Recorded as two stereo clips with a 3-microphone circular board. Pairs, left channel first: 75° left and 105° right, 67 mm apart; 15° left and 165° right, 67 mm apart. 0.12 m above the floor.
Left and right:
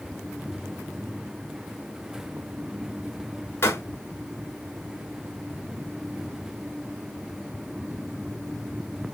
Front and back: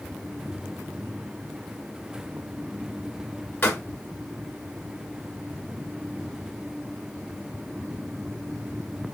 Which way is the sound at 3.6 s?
55° left.